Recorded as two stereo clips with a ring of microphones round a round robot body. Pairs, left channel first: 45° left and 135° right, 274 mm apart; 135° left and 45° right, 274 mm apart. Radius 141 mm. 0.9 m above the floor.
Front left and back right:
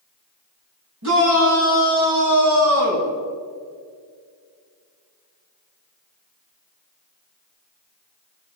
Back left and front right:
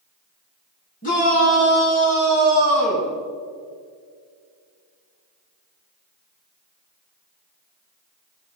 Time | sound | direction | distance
1.0 | a shout | 165° right | 8 m